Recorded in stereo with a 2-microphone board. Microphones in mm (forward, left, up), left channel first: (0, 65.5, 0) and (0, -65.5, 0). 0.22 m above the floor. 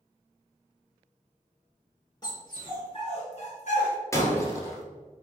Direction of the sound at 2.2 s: 30° left (ahead or behind).